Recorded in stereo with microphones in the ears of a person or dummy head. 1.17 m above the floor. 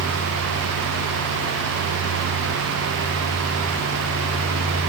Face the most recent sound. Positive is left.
No sound to turn to.